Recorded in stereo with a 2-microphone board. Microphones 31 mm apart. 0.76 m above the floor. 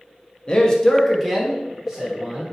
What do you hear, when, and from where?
0.5 s a man speaking: 30° left (ahead or behind), 0.6 m; by 2.5 s 20° right (ahead or behind), 1.3 m